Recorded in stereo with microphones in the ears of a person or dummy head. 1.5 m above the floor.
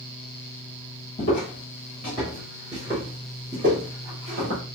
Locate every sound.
1.2 s footsteps: 25° left (ahead or behind), 1.6 m; by 4.6 s 35° right (ahead or behind), 1.8 m